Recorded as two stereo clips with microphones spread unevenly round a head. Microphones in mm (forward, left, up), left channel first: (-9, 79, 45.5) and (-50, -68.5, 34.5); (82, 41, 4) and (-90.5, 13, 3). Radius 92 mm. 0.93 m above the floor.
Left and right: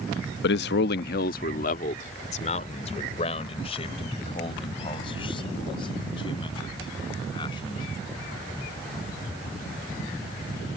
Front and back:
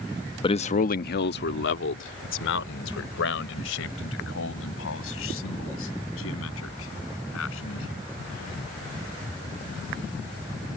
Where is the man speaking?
75° left; by 7.9 s 10° left.